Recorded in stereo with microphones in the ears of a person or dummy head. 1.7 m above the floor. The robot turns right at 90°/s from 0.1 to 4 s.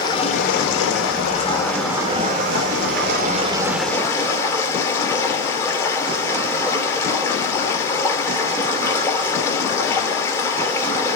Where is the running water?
30° left, 2.5 m; by 11.2 s 20° left, 2.5 m.